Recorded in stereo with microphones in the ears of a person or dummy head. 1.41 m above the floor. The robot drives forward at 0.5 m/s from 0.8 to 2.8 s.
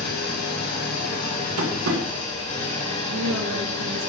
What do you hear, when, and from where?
0.0 s an engine running: 50° left (ahead or behind), 2.0 m; by 4.1 s 35° left (ahead or behind), 2.5 m
1.6 s tapping: 75° right (ahead or behind), 1.8 m; by 2.0 s 70° right (ahead or behind), 1.9 m
3.1 s a woman speaking: 85° right, 3 m